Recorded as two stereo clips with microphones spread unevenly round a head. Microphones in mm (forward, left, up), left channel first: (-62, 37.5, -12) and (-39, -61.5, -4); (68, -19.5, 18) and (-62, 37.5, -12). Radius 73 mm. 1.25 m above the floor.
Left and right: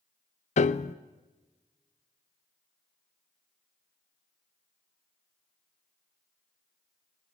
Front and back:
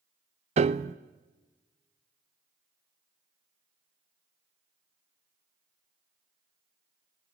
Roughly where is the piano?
Left.